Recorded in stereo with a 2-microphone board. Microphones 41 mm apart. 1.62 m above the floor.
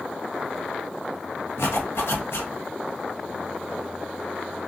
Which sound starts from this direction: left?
A zipper, at 1.6 s.